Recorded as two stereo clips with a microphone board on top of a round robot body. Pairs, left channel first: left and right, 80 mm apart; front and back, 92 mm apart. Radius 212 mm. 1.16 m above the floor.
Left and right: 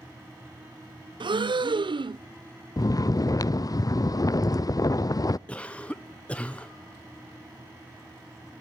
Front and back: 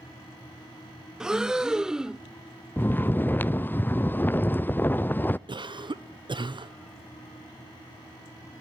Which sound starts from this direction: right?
Breathing, at 1.2 s.